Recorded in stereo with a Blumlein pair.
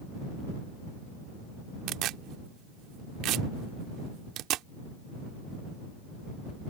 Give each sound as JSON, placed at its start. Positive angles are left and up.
{"t": 1.9, "sound": "tearing paper", "azimuth_deg": -35}